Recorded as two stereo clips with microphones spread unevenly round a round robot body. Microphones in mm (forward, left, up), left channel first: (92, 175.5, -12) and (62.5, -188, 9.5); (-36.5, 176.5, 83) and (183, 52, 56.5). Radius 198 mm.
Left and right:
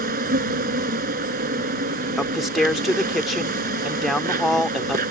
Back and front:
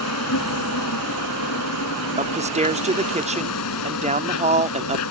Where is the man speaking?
Straight ahead.